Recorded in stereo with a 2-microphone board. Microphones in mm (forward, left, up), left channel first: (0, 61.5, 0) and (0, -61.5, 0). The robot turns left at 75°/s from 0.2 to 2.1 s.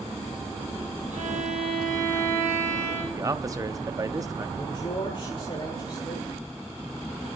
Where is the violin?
85° right, 6.5 m; by 3.0 s 160° right, 6.5 m.